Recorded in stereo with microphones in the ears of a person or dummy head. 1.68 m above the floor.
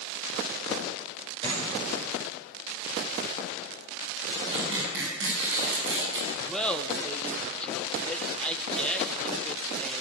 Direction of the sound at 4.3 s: 65° right (ahead or behind).